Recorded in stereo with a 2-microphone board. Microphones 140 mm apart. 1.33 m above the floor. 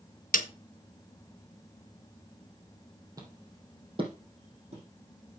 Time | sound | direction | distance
0.3 | a snare drum | 75° left (ahead or behind) | 1.0 m
3.2 | footsteps | 25° right (ahead or behind) | 3 m